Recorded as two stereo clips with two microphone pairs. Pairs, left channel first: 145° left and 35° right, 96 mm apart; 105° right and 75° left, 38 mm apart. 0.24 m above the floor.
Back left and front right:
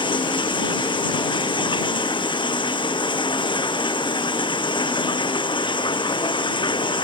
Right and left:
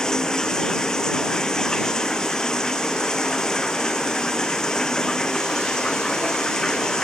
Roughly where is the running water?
Behind.